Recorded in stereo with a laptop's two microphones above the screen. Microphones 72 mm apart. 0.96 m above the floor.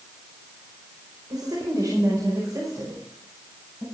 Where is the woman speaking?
65° right (ahead or behind), 4.5 m; by 3.8 s 40° right (ahead or behind), 7 m.